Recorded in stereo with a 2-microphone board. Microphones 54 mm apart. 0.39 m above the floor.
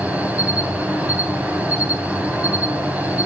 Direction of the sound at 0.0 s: 25° right (ahead or behind).